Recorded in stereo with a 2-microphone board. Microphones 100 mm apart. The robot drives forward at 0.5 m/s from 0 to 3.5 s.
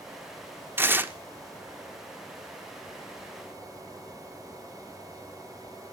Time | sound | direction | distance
0.8 | tearing paper | 20° right (ahead or behind) | 0.7 m